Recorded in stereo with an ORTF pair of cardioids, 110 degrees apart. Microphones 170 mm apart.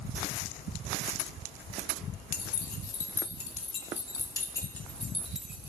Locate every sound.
2.3 s keys jangling: 65° left, 3 m; by 5.7 s 10° right, 2 m